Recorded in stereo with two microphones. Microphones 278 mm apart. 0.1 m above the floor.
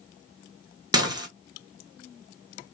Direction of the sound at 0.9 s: 15° right (ahead or behind).